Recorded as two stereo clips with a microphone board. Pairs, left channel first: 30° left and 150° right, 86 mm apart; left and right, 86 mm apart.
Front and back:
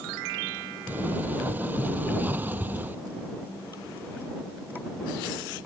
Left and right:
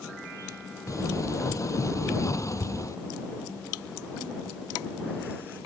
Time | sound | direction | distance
0.9 | a sliding door | 140° left | ?